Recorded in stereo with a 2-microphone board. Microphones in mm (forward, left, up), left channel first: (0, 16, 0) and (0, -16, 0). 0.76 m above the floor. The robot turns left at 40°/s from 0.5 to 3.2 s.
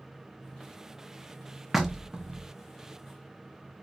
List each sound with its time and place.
1.7 s knocking: 5° right, 0.6 m; by 2.5 s 40° right, 0.6 m